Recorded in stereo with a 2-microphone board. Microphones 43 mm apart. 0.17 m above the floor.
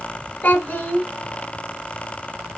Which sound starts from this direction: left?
A child speaking, at 0.4 s.